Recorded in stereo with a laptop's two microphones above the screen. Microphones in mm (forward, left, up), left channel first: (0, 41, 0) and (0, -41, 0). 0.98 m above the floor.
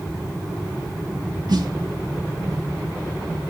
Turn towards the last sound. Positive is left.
turn(degrees=-65)  # may be behind; listen again after turning